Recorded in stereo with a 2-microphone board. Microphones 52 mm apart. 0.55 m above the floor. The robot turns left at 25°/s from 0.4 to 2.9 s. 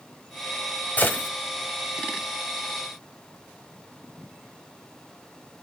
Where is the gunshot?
30° left (ahead or behind), 1.6 m; by 1.3 s 40° left (ahead or behind), 1.6 m.